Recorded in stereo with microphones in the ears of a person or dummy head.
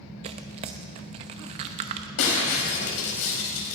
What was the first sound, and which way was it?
Tearing paper, 25° right (ahead or behind).